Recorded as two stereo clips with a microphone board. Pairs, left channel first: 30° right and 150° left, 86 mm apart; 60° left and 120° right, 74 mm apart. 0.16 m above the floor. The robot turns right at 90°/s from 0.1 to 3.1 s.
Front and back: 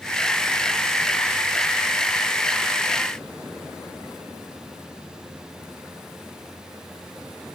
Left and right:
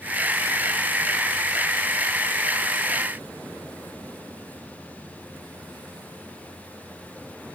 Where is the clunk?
No clunk in this recording.